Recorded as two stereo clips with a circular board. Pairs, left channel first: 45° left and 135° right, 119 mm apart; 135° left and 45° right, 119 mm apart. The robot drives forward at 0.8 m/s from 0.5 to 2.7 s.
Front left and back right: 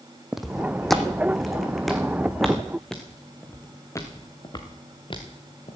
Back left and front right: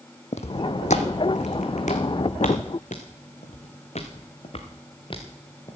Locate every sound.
0.3 s footsteps: 140° left, 0.9 m; by 5.8 s 80° left, 2 m